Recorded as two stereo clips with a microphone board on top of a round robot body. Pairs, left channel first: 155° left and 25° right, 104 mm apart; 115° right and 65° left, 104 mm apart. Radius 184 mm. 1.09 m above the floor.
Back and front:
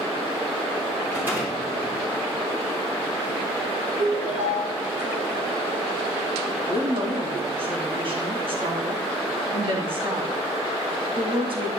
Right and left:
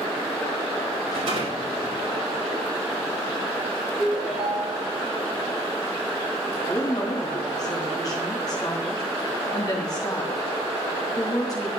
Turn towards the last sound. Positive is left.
turn(degrees=-60)